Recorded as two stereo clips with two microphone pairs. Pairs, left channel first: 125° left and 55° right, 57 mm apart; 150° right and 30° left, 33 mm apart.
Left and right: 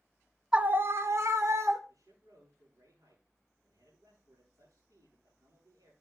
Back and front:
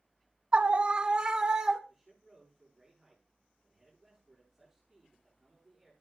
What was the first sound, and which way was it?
A scream, 10° left.